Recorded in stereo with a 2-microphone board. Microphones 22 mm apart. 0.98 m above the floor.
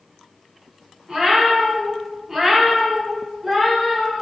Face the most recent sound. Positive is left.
turn(degrees=10)  # may be behind; listen again after turning